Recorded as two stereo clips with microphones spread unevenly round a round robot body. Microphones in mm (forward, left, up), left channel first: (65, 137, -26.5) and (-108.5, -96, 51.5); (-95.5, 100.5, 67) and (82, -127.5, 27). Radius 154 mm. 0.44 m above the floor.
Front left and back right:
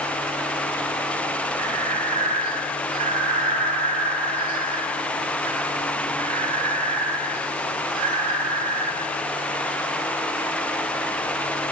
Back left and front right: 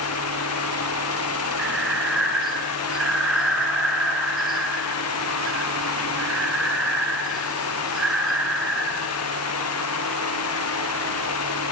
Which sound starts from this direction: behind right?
Breathing, at 1.6 s.